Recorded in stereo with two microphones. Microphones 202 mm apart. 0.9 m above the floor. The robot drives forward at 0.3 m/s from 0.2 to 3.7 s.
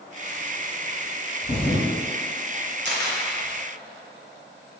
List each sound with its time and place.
1.4 s a thud: 30° left (ahead or behind), 1.7 m
2.9 s a camera shutter: 60° right (ahead or behind), 0.5 m; by 3.2 s 50° right (ahead or behind), 0.6 m